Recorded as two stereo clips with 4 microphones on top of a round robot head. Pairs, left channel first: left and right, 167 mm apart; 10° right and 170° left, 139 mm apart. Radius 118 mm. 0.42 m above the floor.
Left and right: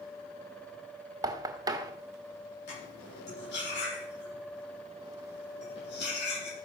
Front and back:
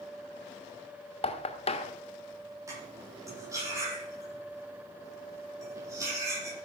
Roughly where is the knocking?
Ahead right.